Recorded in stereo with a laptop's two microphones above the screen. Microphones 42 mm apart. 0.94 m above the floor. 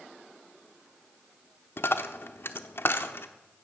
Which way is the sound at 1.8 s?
60° left (ahead or behind).